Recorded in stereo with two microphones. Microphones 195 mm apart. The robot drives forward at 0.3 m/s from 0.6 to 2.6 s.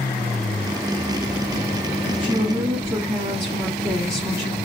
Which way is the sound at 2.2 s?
15° right (ahead or behind).